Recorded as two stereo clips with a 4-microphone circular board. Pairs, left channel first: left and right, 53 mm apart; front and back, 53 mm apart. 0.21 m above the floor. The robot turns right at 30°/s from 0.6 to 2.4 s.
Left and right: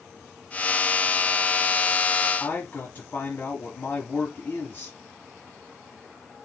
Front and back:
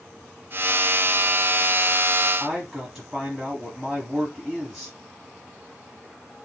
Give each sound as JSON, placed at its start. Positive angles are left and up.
{"t": 2.4, "sound": "a man speaking", "azimuth_deg": 105, "distance_m": 1.3}